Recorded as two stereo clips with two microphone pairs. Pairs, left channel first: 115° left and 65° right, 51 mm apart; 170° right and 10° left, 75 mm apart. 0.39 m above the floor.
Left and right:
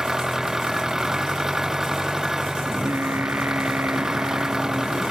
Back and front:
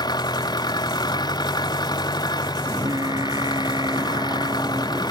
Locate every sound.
0.0 s an engine running: 145° right
2.7 s singing: 20° right